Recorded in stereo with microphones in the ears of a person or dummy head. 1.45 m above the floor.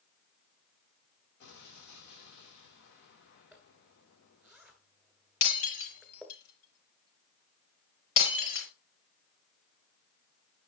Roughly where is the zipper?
Centre.